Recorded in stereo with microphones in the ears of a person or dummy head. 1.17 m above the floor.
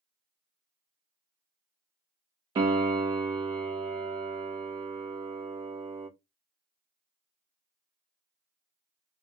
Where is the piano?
25° right (ahead or behind), 0.6 m.